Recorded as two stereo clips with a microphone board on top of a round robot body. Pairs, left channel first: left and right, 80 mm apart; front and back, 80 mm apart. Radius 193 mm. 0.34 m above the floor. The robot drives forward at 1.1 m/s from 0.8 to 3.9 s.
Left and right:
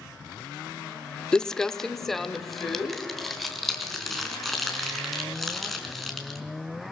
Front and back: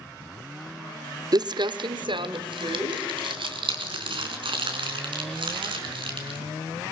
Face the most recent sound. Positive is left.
turn(degrees=180)